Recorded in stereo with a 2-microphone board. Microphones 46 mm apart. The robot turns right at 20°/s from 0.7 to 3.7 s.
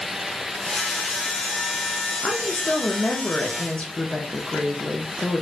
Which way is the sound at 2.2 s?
15° left (ahead or behind).